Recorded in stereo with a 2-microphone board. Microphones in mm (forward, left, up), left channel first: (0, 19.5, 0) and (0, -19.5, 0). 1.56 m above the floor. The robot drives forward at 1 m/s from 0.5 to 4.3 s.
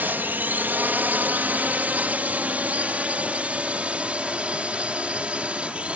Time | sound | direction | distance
0.0 | a drone | 55° right (ahead or behind) | ?